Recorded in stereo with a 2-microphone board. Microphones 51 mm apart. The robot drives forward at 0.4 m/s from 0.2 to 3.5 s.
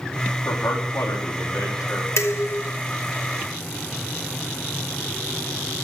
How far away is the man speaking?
About 3 m.